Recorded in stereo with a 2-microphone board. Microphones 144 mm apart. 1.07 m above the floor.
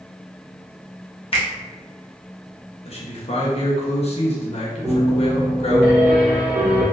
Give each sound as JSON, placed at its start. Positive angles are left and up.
{"t": 1.3, "sound": "a finger snap", "side_deg": 40, "distance_m": 0.8}
{"t": 2.9, "sound": "a man speaking", "side_deg": 45, "distance_m": 0.9}
{"t": 4.8, "sound": "a piano", "side_deg": -10, "distance_m": 1.3}